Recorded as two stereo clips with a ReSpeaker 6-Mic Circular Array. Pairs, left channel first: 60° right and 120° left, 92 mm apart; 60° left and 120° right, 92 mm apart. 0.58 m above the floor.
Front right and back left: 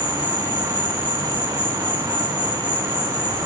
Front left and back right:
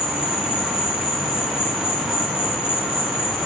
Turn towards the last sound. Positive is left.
turn(degrees=120)